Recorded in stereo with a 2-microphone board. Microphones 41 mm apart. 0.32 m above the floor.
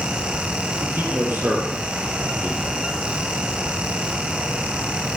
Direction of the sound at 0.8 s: 70° right (ahead or behind).